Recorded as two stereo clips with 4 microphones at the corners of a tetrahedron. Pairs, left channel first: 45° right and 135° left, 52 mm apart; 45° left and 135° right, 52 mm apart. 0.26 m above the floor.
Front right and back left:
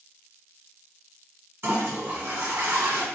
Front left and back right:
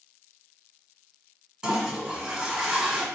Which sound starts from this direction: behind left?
A toilet flushing, at 1.6 s.